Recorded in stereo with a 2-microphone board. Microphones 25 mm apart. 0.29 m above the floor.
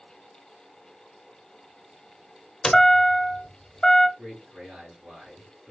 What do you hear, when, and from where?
2.6 s a chime: 25° left (ahead or behind), 1.0 m
4.2 s a man speaking: 50° right (ahead or behind), 3.5 m